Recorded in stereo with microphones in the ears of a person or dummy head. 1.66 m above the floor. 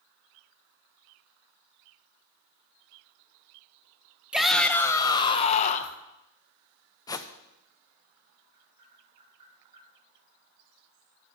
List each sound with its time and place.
4.3 s a shout: 5° right (ahead or behind), 1.4 m; by 6.0 s 45° left (ahead or behind), 1.7 m
7.1 s a whoosh: 20° left (ahead or behind), 1.0 m
8.5 s tapping: 30° right (ahead or behind), 7 m